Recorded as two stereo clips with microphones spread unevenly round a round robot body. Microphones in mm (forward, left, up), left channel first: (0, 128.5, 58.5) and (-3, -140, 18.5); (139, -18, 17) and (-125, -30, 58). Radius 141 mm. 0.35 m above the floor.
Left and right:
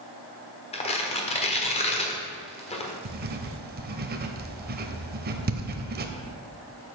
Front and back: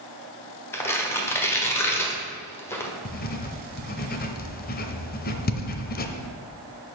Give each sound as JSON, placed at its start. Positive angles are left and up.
{"t": 0.7, "sound": "tearing paper", "azimuth_deg": 40, "distance_m": 1.3}
{"t": 3.0, "sound": "writing", "azimuth_deg": -45, "distance_m": 0.8}